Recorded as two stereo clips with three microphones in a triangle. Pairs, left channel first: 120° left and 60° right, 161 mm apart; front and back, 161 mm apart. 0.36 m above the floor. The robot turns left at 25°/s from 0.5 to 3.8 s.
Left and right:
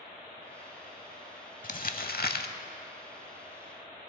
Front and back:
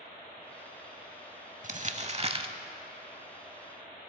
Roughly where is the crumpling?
Behind left.